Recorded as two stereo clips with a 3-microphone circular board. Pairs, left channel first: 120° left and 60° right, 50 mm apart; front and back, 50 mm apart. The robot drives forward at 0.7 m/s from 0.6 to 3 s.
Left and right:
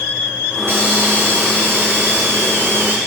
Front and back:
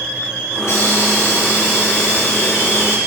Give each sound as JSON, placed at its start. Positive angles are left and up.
{"t": 0.6, "sound": "a hiss", "azimuth_deg": -20, "distance_m": 5.5}